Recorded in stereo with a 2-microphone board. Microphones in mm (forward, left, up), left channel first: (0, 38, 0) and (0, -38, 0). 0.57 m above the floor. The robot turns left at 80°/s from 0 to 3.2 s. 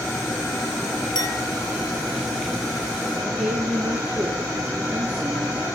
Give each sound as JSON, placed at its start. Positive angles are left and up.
{"t": 1.1, "sound": "a clink", "side_deg": 85, "distance_m": 2.5}
{"t": 3.2, "sound": "a woman speaking", "side_deg": -15, "distance_m": 7.5}